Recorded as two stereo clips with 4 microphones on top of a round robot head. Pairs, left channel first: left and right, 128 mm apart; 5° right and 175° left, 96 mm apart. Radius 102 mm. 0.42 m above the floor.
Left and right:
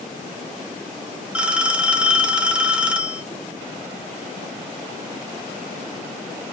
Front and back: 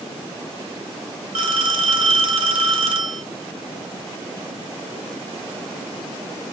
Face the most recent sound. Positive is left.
turn(degrees=-170)